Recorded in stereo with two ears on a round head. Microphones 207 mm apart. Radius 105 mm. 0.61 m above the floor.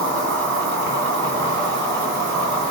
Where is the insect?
55° right (ahead or behind), 1.8 m.